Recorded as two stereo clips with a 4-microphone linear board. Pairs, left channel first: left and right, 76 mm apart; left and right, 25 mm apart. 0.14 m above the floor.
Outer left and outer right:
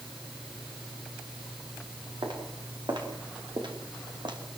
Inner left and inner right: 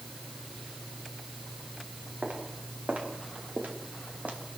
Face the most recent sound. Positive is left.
turn(degrees=-85)